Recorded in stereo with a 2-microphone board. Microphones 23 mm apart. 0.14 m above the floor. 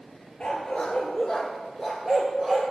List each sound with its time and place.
0.4 s a dog barking: 50° left (ahead or behind), 1.3 m; by 2.6 s 5° right (ahead or behind), 1.7 m